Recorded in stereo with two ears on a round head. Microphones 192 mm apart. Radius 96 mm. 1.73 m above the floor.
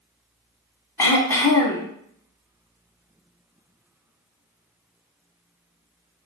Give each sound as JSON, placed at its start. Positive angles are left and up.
{"t": 1.0, "sound": "throat clearing", "side_deg": 15, "distance_m": 0.8}